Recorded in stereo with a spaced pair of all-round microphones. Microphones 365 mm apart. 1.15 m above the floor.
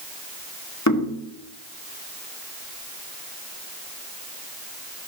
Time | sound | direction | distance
0.9 | knocking | 50° left (ahead or behind) | 2 m